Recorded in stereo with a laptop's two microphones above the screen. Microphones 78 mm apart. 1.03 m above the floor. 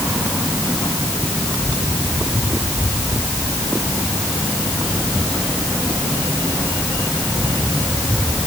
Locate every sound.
Only background noise.